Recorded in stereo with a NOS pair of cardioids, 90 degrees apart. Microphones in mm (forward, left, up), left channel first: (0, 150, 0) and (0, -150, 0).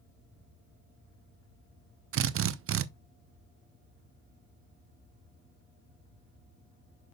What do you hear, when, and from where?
2.1 s a drill: 50° right, 0.6 m